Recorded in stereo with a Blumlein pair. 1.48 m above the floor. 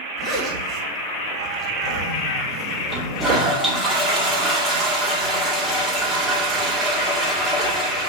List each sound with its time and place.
0.2 s a zipper: 20° right, 2.0 m
2.9 s a toilet flushing: 5° right, 2 m